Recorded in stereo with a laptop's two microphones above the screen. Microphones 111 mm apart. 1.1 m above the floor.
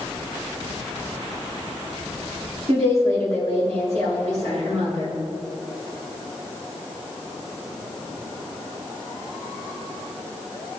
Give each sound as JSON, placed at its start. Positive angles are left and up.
{"t": 2.7, "sound": "a woman speaking", "side_deg": -60, "distance_m": 3.0}